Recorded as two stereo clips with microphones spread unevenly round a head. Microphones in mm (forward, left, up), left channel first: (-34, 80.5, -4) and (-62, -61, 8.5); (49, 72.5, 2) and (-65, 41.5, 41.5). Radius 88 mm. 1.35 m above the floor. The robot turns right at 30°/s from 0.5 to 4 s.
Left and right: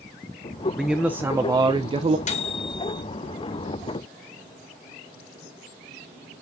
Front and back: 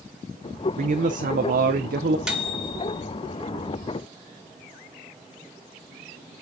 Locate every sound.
0.8 s a man speaking: 170° left, 0.6 m; by 2.2 s 150° right, 0.6 m
2.3 s a microwave: 115° left, 1.8 m; by 3.0 s 135° left, 1.8 m